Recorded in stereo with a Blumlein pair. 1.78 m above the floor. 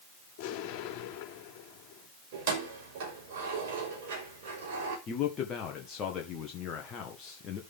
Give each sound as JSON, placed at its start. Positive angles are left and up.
{"t": 0.4, "sound": "an explosion", "azimuth_deg": 40, "distance_m": 5.0}
{"t": 2.3, "sound": "keys jangling", "azimuth_deg": -50, "distance_m": 5.5}
{"t": 5.1, "sound": "a man speaking", "azimuth_deg": 25, "distance_m": 1.8}